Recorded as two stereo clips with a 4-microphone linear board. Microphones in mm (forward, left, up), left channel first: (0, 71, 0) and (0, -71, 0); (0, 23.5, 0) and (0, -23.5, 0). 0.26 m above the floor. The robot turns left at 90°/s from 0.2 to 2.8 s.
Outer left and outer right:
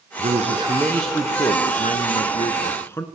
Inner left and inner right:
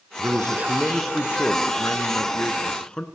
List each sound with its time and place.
0.2 s a man speaking: 110° right, 3 m; by 3.0 s 20° left, 3 m